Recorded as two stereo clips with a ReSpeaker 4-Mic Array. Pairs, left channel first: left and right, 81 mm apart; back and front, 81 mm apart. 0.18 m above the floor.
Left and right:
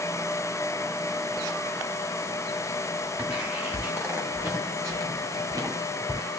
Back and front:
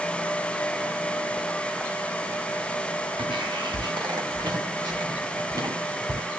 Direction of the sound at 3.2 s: 20° right.